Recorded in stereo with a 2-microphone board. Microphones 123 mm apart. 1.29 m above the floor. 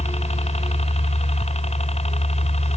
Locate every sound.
0.0 s a helicopter: 60° left (ahead or behind)